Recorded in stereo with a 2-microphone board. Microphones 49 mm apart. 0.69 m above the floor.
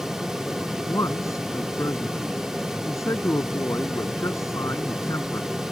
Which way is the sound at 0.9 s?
80° left.